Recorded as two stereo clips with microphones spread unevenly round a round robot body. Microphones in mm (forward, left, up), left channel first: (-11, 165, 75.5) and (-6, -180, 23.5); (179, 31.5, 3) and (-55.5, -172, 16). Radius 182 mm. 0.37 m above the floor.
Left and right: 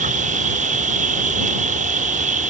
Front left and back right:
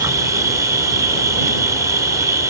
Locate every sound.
0.0 s an insect: 60° right